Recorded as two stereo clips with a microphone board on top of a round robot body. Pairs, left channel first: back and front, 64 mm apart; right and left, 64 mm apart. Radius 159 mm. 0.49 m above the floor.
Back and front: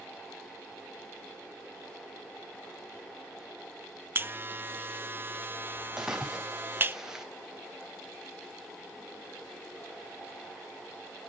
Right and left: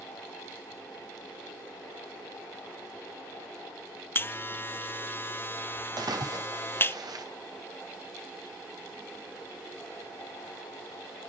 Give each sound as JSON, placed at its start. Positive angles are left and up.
{"t": 4.2, "sound": "a buzzer", "azimuth_deg": -45, "distance_m": 0.7}
{"t": 6.0, "sound": "a splash", "azimuth_deg": 80, "distance_m": 2.5}